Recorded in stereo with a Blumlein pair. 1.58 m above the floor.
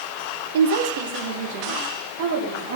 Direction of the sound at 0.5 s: 55° right.